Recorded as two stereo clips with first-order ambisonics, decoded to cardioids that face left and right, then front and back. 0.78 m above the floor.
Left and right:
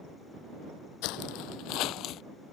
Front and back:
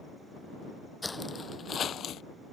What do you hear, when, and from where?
1.0 s footsteps: 80° left; by 2.2 s 50° left